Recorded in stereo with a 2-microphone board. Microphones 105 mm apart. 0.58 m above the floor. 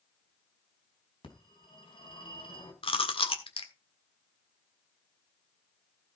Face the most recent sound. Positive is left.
turn(degrees=60)  # may be behind; listen again after turning